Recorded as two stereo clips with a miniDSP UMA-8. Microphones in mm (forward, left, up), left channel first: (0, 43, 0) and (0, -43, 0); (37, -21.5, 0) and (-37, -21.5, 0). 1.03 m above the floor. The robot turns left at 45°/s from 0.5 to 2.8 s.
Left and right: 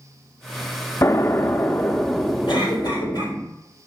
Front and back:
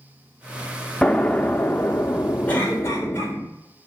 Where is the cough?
70° left, 3.5 m; by 3.3 s 55° left, 3.5 m.